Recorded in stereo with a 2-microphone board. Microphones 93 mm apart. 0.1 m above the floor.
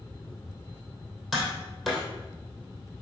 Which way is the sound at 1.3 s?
Centre (ahead or behind).